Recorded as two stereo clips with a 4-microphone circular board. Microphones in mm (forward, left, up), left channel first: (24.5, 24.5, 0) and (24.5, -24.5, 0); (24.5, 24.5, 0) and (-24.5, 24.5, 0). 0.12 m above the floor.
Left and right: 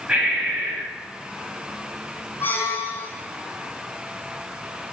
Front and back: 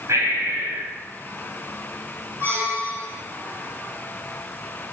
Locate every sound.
0.1 s breathing: 160° right, 6 m
2.4 s a squeak: 135° left, 3 m